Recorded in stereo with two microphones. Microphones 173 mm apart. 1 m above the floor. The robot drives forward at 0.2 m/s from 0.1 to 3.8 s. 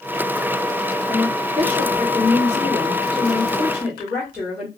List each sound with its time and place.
1.1 s a woman speaking: 10° right (ahead or behind), 1.1 m; by 4.7 s 5° right (ahead or behind), 1.6 m